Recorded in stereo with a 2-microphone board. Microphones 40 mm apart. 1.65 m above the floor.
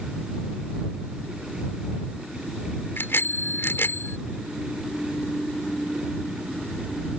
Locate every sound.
3.0 s a bicycle bell: 75° left (ahead or behind)